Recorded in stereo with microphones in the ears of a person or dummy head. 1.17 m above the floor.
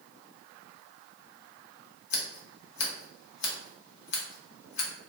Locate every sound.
2.1 s scissors: 60° left (ahead or behind), 0.7 m